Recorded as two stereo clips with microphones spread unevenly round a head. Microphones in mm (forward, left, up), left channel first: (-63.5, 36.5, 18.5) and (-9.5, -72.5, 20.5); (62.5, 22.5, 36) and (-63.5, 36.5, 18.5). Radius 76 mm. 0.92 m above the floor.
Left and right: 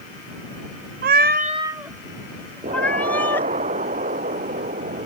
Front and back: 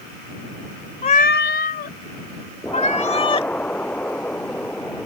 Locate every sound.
1.0 s a cat meowing: 60° right; by 3.5 s 40° left
2.6 s an explosion: 90° right